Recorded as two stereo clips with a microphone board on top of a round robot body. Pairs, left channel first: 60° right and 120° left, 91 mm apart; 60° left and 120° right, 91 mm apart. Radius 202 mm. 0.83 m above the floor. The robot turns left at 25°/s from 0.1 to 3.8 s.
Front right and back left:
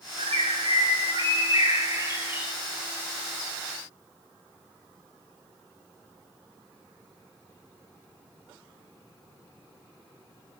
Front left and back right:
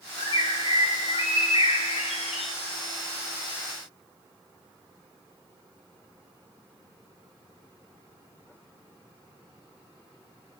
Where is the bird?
105° left, 2 m; by 2.5 s 45° left, 2 m.